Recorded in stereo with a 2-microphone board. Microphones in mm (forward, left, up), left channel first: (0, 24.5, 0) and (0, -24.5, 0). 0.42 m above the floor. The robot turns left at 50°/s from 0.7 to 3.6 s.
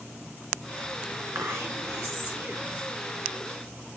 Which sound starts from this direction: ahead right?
Whispering, at 1.4 s.